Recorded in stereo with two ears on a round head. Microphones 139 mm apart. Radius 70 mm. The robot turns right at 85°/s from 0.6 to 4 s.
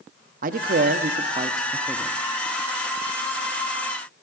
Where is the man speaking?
110° right, 0.7 m; by 2.2 s 25° left, 0.7 m.